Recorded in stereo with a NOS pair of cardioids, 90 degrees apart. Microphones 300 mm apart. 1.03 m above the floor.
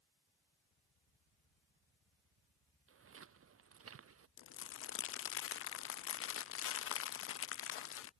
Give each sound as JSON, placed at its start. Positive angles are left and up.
{"t": 2.9, "sound": "footsteps", "azimuth_deg": -45}
{"t": 4.4, "sound": "crumpling", "azimuth_deg": 45}